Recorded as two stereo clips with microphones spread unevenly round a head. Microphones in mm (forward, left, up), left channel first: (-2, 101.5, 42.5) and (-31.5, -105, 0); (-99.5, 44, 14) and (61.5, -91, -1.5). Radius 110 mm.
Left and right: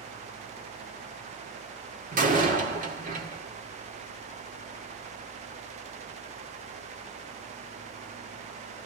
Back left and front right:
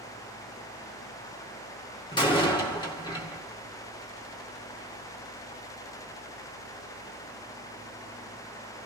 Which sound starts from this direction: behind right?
A door slam, at 2.1 s.